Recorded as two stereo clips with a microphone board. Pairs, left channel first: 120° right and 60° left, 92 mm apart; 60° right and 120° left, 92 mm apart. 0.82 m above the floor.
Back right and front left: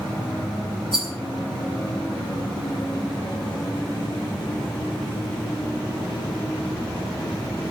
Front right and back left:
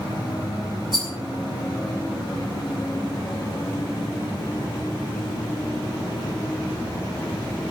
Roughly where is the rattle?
Left.